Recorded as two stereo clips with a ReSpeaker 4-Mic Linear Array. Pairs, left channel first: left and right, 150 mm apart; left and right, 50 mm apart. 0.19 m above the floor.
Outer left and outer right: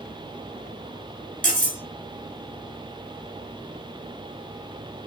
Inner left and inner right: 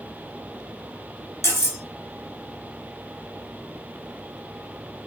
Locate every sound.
1.4 s cutlery clinking: 65° left (ahead or behind), 1.9 m